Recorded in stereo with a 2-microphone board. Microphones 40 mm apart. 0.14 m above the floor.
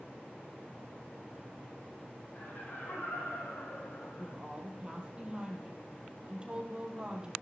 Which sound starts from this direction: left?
Laughter, at 2.4 s.